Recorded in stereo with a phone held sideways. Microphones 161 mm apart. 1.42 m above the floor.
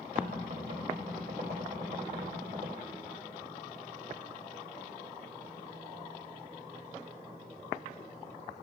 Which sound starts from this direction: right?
Knocking, at 0.1 s.